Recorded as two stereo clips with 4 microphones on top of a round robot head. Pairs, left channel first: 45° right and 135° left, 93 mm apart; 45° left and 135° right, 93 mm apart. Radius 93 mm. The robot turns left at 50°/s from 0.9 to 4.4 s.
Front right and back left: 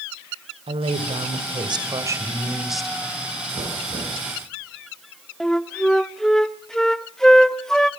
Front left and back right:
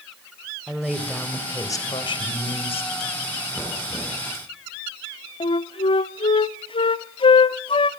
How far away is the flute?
About 0.7 m.